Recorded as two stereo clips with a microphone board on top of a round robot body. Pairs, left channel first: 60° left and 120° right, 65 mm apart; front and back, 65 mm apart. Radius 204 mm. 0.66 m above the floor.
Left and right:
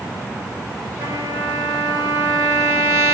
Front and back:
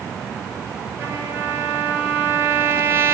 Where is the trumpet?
140° right, 4 m.